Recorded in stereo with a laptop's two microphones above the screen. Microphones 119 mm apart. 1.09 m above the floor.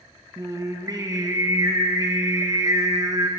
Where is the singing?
30° right (ahead or behind), 1.0 m.